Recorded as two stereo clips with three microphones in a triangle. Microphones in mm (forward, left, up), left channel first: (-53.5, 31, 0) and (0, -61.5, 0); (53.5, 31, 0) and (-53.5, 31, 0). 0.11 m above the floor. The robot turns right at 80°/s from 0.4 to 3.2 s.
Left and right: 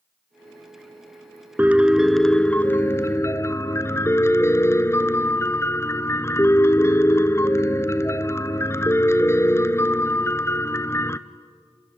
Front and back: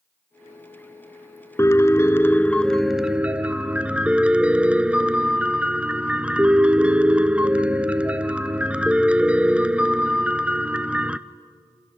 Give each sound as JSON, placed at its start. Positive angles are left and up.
{"t": 1.6, "sound": "a piano", "azimuth_deg": -10, "distance_m": 0.7}